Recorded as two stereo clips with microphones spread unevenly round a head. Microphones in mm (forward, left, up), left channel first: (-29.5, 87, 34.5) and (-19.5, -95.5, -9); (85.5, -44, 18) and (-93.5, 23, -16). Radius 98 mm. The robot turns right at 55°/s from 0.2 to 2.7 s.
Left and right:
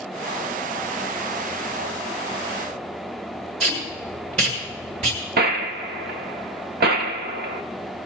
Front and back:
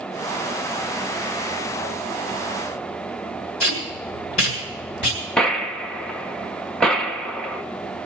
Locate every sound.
3.6 s tape being pulled: 25° right, 5.5 m
5.4 s a gunshot: 90° right, 0.9 m